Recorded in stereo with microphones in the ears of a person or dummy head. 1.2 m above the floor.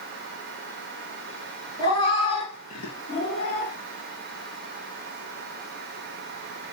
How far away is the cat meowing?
About 3.5 m.